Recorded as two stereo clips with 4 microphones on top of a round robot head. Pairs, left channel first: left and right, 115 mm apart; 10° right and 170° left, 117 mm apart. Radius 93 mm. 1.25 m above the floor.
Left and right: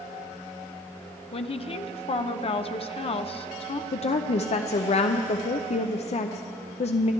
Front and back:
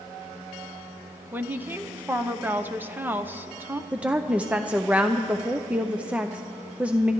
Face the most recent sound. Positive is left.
turn(degrees=95)